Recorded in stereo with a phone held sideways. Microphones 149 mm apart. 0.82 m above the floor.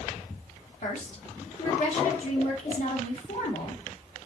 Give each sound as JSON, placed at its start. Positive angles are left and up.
{"t": 0.8, "sound": "a woman speaking", "side_deg": 65, "distance_m": 2.0}